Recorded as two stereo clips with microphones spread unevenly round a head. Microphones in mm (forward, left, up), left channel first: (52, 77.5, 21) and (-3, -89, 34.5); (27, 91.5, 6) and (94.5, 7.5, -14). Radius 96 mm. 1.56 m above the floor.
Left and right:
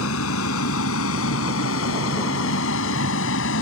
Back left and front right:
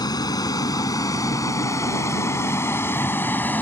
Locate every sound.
0.0 s a vehicle: 80° left; by 3.6 s 60° left